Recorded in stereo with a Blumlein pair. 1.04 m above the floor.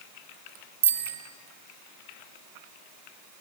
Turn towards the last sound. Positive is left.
turn(degrees=-70)